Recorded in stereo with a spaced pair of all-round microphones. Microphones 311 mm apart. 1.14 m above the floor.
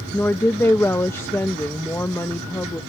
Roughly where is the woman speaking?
Centre.